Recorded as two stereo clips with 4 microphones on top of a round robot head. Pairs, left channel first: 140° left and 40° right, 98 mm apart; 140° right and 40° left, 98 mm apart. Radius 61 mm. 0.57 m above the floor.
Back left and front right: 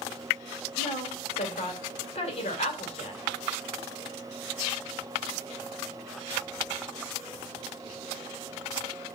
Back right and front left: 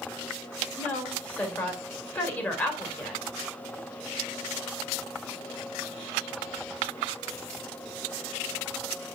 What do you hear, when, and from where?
0.8 s a woman speaking: 145° left, 2.5 m